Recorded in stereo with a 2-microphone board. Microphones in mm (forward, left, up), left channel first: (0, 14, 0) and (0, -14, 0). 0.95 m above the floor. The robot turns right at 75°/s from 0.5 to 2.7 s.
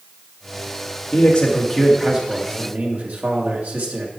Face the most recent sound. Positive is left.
turn(degrees=-115)